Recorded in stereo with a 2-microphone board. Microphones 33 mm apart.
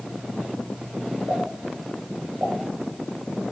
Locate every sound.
1.3 s a pop: 80° right, 6 m